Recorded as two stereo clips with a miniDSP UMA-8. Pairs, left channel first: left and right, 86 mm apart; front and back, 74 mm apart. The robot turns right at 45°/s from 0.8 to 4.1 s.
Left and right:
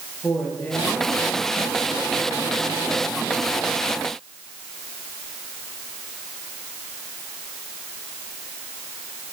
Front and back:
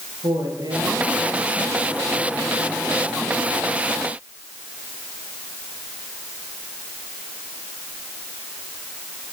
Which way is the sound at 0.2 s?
165° left.